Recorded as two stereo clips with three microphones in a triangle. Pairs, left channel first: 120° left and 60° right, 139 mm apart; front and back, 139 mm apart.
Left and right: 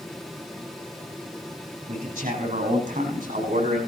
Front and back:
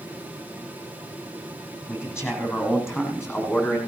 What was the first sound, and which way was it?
A man speaking, 70° right.